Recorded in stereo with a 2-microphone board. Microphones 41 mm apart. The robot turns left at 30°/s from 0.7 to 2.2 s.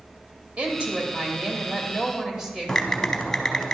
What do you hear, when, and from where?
0.6 s a woman speaking: 120° right, 1.3 m; by 3.7 s 165° right, 1.3 m
2.7 s typing on a keyboard: 15° left (ahead or behind), 0.6 m